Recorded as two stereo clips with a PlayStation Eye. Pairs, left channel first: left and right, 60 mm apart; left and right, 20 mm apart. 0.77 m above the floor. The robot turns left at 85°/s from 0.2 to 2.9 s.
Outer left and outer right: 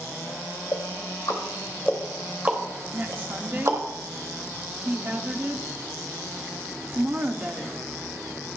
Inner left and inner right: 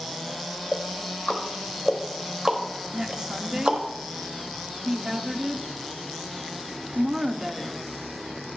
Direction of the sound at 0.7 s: 60° left (ahead or behind).